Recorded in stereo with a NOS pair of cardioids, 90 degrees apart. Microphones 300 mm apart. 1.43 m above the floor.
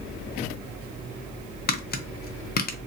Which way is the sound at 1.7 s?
30° left.